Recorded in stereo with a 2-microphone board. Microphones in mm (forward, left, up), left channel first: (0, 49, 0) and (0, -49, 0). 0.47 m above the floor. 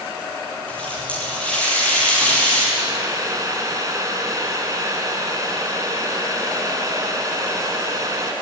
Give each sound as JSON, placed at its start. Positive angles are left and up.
{"t": 0.7, "sound": "a running tap", "side_deg": 10, "distance_m": 9.0}
{"t": 2.8, "sound": "boiling", "side_deg": -35, "distance_m": 3.5}